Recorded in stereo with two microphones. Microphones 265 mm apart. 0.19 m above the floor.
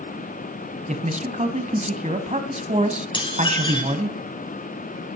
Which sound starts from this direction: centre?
Dishes clattering, at 3.1 s.